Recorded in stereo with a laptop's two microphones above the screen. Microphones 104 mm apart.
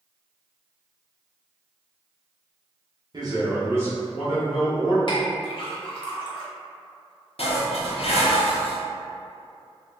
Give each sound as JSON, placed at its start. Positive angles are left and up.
{"t": 3.1, "sound": "a man speaking", "side_deg": -45, "distance_m": 0.9}
{"t": 5.1, "sound": "a clink", "side_deg": 50, "distance_m": 0.9}
{"t": 7.4, "sound": "dishes clattering", "side_deg": 70, "distance_m": 0.5}